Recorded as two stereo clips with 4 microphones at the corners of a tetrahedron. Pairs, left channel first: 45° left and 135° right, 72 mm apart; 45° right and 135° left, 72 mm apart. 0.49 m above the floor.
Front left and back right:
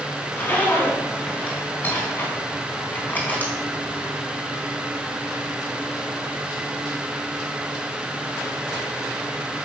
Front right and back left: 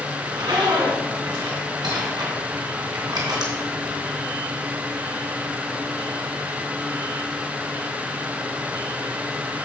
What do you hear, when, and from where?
0.2 s a zipper: 110° left, 3 m